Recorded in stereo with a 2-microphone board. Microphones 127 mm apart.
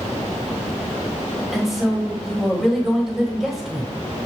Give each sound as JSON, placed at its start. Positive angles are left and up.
{"t": 1.5, "sound": "a woman speaking", "side_deg": -5, "distance_m": 1.5}